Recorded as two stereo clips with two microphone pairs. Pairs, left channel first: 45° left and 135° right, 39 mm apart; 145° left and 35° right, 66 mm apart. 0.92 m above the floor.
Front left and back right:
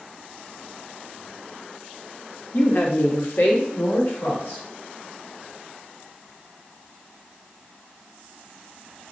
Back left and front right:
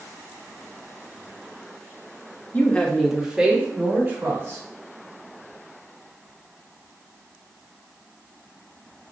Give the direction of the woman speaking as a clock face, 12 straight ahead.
9 o'clock.